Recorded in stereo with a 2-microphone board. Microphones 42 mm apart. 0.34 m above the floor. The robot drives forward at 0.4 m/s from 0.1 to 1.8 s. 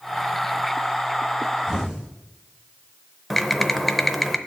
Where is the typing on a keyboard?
5° left (ahead or behind), 0.6 m.